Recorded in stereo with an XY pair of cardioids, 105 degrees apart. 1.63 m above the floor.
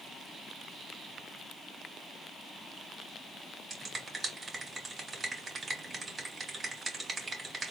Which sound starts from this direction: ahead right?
A finger snap, at 3.7 s.